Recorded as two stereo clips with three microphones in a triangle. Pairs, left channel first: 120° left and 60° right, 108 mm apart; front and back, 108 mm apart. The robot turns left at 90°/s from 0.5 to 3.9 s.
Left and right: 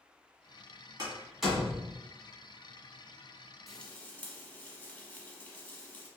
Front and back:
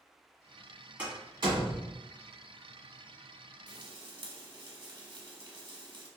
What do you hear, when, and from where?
1.0 s a door slam: 110° right, 1.5 m; by 1.9 s 165° left, 1.5 m
3.7 s frying: 150° right, 0.8 m; by 6.1 s 170° right, 0.8 m